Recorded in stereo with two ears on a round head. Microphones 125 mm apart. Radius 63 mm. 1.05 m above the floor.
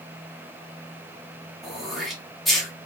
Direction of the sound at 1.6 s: Centre (ahead or behind).